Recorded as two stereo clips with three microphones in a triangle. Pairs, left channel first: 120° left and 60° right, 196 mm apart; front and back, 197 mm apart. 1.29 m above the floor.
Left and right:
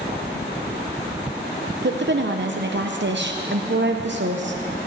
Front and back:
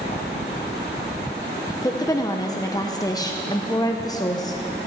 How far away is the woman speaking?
About 0.9 m.